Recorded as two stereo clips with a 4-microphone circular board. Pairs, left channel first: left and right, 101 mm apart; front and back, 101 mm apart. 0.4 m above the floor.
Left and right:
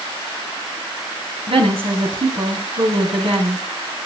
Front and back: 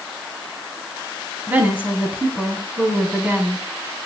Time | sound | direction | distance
1.5 | a woman speaking | 110° right | 3.5 m